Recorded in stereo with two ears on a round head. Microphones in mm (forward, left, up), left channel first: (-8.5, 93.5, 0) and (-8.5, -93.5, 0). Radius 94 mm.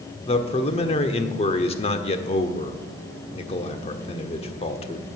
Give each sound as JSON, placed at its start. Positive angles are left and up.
{"t": 0.3, "sound": "a man speaking", "side_deg": 30, "distance_m": 1.2}